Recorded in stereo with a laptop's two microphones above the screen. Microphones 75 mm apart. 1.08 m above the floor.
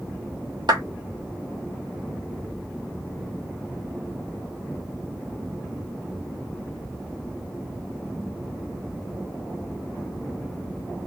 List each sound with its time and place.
0.7 s a clap: 80° right, 1.3 m